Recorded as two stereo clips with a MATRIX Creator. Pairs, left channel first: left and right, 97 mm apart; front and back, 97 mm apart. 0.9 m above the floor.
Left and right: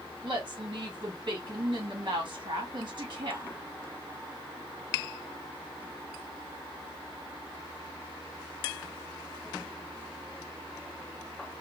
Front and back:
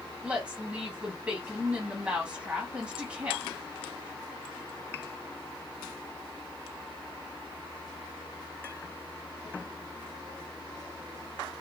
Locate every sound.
0.2 s a woman speaking: 115° right, 1.2 m